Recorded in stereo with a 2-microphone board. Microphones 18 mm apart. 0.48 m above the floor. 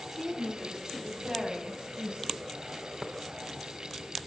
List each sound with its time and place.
0.1 s a woman speaking: 15° right (ahead or behind), 4.5 m; by 2.4 s 50° right (ahead or behind), 4 m
3.0 s tapping: centre (ahead or behind), 0.7 m